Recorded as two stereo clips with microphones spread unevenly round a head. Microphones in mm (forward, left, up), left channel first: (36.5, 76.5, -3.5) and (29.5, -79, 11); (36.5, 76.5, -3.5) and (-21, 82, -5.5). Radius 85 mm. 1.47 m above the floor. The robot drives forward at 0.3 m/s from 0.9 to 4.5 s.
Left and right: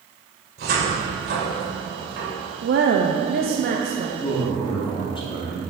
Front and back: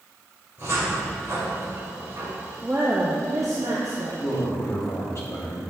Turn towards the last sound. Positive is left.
turn(degrees=30)